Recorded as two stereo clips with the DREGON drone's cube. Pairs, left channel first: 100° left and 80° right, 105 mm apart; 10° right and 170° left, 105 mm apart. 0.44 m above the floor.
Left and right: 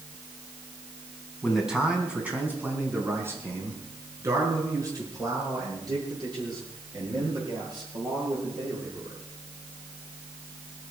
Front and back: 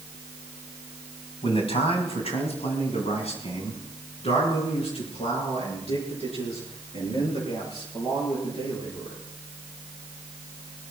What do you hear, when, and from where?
1.4 s a man speaking: 10° left, 3.5 m; by 9.2 s 35° right, 11 m